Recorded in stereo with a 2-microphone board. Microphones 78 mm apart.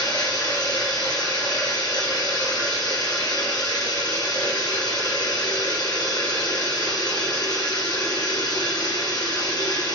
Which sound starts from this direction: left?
Running water, at 0.0 s.